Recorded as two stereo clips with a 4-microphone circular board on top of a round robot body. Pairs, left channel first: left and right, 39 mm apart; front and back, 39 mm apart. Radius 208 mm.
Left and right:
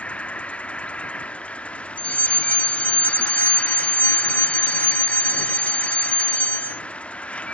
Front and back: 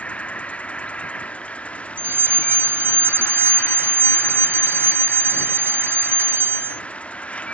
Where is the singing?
I don't hear singing.